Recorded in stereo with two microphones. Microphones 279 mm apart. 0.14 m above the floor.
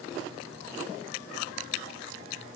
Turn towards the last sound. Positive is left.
No sound to turn to.